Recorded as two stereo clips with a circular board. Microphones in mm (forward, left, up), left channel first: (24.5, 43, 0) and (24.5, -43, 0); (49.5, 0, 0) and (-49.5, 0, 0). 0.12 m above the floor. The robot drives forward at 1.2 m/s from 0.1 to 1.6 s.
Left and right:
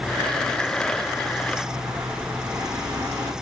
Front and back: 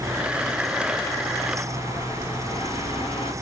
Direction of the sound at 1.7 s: 30° right.